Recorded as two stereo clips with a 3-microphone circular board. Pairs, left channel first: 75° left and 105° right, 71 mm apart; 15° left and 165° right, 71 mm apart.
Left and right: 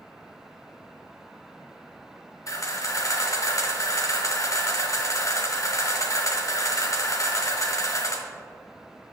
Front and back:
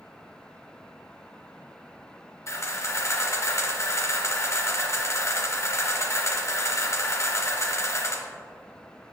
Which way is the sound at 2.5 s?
50° left.